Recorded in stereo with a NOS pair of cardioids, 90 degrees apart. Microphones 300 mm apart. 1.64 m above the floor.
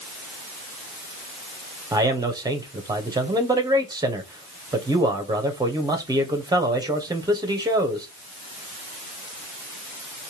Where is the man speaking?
15° right, 1.2 m.